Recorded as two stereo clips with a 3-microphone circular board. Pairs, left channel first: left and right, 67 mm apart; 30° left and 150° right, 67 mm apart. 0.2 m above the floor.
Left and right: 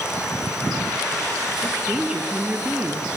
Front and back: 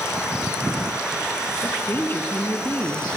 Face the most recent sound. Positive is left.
turn(degrees=-20)